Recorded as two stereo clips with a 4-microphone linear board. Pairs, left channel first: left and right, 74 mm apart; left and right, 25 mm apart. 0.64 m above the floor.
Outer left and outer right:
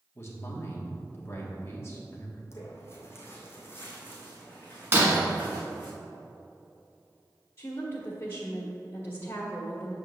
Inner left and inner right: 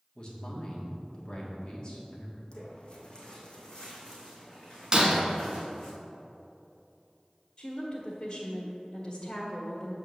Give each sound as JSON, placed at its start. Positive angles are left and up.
{"t": 0.1, "sound": "a man speaking", "side_deg": 35, "distance_m": 1.6}
{"t": 2.5, "sound": "footsteps", "side_deg": 40, "distance_m": 1.6}
{"t": 4.9, "sound": "breaking glass", "side_deg": -30, "distance_m": 1.7}
{"t": 7.6, "sound": "a woman speaking", "side_deg": 45, "distance_m": 1.3}